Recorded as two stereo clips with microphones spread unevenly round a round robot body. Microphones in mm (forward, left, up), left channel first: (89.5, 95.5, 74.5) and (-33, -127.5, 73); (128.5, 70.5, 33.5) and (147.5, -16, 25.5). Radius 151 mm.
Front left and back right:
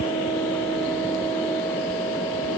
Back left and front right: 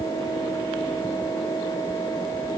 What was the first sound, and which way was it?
Only background noise.